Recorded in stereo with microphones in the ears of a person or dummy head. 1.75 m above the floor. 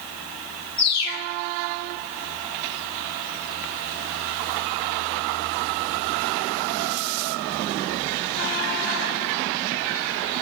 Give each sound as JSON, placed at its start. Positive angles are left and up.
{"t": 0.8, "sound": "a bird", "side_deg": 60, "distance_m": 3.5}